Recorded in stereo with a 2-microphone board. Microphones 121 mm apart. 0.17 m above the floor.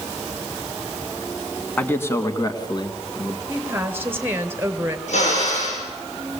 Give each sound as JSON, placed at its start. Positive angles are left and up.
{"t": 1.8, "sound": "a man speaking", "side_deg": 15, "distance_m": 1.9}
{"t": 3.5, "sound": "a woman speaking", "side_deg": -20, "distance_m": 2.5}
{"t": 5.1, "sound": "a drill", "side_deg": 70, "distance_m": 9.0}